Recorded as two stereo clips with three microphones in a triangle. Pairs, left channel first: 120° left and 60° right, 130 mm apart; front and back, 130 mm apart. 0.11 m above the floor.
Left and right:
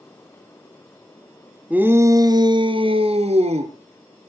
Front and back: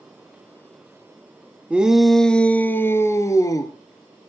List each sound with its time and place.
1.7 s a shout: 120° right, 1.1 m; by 3.7 s 55° right, 1.9 m